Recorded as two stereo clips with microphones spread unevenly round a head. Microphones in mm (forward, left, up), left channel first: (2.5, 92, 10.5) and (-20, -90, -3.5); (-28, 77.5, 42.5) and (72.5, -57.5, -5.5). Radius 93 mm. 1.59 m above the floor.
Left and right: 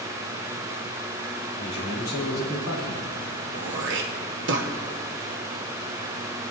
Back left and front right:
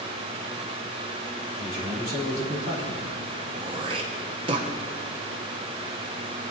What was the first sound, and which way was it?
A man speaking, 80° left.